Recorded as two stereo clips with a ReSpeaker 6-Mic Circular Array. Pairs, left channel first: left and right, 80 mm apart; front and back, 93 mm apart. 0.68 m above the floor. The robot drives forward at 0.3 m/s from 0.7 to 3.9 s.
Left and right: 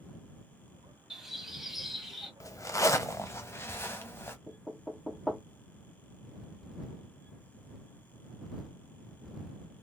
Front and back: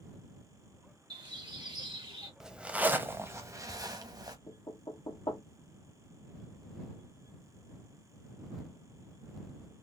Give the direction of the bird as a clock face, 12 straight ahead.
6 o'clock.